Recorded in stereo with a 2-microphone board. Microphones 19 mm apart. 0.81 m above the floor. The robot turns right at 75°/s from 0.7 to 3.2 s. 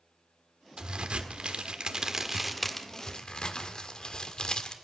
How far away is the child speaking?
I don't hear a child speaking.